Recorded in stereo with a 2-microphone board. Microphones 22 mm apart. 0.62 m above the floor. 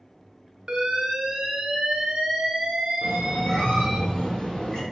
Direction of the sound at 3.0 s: 40° left (ahead or behind).